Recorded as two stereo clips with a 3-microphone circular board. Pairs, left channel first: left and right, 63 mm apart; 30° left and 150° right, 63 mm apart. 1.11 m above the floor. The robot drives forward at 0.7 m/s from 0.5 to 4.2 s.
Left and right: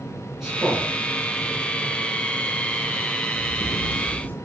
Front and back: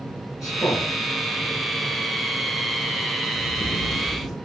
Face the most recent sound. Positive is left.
turn(degrees=30)